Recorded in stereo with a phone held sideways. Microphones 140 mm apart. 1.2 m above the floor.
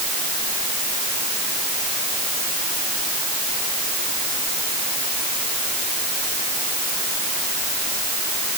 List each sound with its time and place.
Only background noise.